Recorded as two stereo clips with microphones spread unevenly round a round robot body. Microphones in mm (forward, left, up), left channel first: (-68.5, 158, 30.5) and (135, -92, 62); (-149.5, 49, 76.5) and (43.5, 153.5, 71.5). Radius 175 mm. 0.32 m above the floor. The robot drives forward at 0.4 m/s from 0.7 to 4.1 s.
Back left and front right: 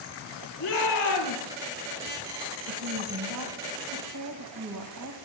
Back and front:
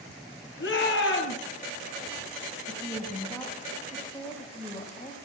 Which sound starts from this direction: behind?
A shout, at 0.6 s.